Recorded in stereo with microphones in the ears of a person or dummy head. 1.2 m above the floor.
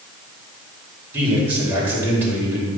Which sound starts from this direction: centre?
A man speaking, at 1.1 s.